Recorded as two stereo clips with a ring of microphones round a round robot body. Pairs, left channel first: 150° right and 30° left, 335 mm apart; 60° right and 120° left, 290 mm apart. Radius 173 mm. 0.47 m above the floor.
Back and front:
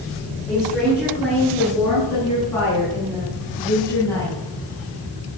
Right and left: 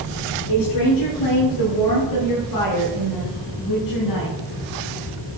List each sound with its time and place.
0.5 s a woman speaking: 65° right, 8.5 m; by 4.4 s 70° right, 5 m